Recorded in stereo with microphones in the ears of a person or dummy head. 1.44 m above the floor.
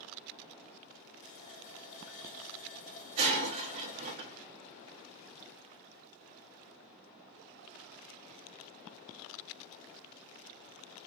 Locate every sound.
1.2 s a running tap: 75° left (ahead or behind), 1.9 m
3.2 s breaking glass: 35° right (ahead or behind), 1.2 m